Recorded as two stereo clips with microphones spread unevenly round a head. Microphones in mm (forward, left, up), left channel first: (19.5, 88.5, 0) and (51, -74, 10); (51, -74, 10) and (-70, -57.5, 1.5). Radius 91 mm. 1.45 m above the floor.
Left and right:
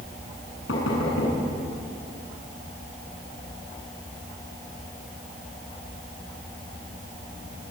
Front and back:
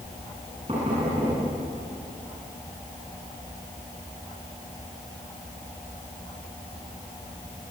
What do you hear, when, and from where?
0.7 s knocking: 105° left, 9.5 m